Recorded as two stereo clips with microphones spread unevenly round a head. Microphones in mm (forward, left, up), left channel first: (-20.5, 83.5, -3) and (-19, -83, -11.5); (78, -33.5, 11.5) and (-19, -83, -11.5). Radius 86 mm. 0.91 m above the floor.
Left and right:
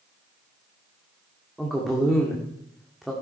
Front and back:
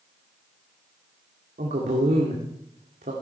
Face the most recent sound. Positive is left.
turn(degrees=180)